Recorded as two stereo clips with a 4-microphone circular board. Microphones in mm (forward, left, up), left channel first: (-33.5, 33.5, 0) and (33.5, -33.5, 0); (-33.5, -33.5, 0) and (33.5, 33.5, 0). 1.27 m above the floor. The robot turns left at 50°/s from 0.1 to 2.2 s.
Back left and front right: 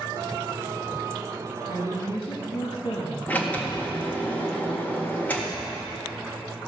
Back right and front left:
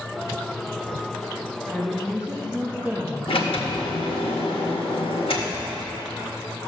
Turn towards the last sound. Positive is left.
turn(degrees=-150)